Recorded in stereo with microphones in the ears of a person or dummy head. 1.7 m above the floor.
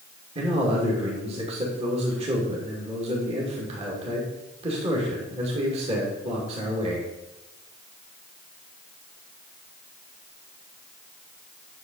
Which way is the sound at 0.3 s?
35° right (ahead or behind).